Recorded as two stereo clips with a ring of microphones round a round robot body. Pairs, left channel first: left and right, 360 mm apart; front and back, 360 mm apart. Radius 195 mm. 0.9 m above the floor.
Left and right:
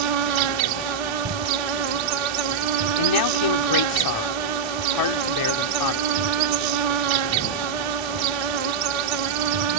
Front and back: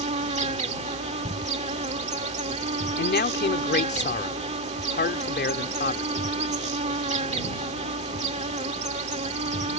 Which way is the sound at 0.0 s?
105° right.